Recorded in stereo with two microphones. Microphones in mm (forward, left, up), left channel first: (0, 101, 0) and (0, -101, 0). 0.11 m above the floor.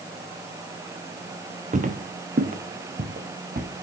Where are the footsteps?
40° right (ahead or behind), 1.1 m; by 3.7 s 50° right (ahead or behind), 2.5 m.